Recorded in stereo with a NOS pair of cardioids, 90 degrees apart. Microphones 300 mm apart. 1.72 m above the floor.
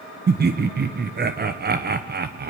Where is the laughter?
35° right, 1.1 m.